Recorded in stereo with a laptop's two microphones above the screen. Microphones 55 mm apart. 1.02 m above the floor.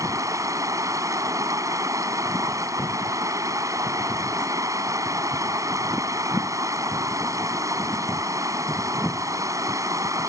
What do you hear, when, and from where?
0.0 s running water: 80° right